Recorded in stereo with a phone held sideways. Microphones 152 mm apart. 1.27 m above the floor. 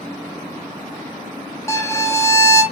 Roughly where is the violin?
Centre.